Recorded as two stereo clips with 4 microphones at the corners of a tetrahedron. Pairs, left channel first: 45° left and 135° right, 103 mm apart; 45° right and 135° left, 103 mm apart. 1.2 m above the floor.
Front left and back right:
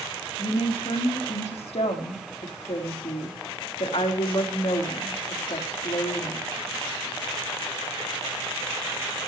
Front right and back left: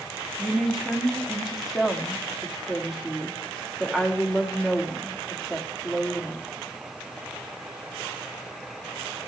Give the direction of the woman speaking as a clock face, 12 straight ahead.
11 o'clock.